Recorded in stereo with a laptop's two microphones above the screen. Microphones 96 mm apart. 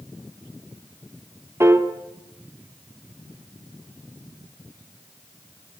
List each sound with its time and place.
1.6 s a piano: 25° right (ahead or behind), 1.3 m